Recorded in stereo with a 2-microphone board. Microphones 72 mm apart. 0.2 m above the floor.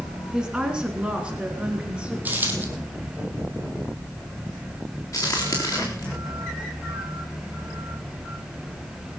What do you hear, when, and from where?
0.3 s a woman speaking: 10° right (ahead or behind), 2.0 m; by 2.1 s 15° right (ahead or behind), 3 m
2.2 s a dropped coin: 25° right (ahead or behind), 3 m
5.1 s a crack: 45° left (ahead or behind), 3.5 m